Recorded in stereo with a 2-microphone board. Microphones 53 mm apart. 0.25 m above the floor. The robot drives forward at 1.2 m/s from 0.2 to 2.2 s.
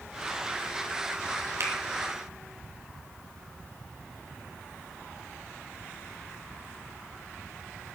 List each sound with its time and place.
1.6 s a finger snap: 60° right (ahead or behind), 3 m; by 1.7 s 65° right (ahead or behind), 3 m